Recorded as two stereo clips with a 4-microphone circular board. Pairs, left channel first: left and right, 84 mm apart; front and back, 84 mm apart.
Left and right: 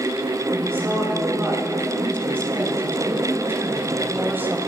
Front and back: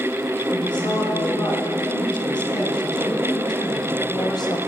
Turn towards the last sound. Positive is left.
turn(degrees=-25)